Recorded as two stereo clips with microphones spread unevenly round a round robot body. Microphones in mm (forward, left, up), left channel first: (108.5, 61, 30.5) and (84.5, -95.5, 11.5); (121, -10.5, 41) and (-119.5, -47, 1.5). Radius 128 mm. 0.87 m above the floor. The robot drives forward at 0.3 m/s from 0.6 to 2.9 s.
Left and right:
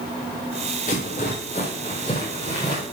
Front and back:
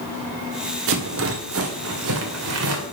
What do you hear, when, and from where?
0.9 s a rattle: 145° left, 1.3 m; by 2.8 s 155° left, 1.8 m